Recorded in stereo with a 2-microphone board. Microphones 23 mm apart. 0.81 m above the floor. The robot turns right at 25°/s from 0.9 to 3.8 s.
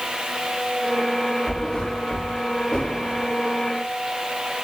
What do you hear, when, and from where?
1.5 s a thud: 20° left (ahead or behind), 6.5 m; by 3.2 s 65° left (ahead or behind), 6.5 m